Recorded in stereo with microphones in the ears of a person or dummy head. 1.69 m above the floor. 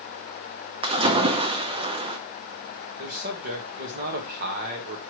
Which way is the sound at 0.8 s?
25° right (ahead or behind).